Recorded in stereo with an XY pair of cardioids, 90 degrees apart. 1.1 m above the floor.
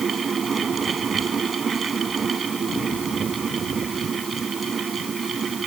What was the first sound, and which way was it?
A fan, 45° right.